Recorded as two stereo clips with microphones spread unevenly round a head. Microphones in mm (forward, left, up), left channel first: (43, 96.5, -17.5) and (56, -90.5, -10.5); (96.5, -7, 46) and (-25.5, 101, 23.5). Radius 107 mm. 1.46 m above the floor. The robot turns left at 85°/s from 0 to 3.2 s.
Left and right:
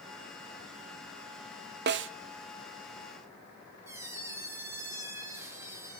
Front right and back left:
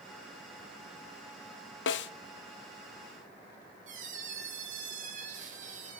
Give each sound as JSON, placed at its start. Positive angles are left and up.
{"t": 1.9, "sound": "a snare drum", "azimuth_deg": -50, "distance_m": 0.6}
{"t": 3.9, "sound": "a squeak", "azimuth_deg": -165, "distance_m": 1.1}